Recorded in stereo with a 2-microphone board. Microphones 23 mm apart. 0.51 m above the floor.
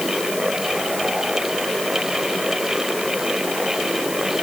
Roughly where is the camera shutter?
No camera shutter in this recording.